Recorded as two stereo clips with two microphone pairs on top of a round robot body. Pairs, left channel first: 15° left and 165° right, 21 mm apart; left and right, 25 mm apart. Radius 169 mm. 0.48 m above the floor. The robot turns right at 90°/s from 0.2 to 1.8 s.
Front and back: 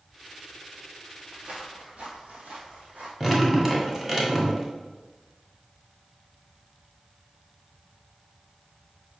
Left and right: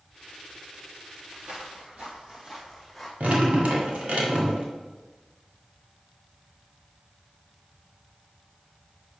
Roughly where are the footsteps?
Behind right.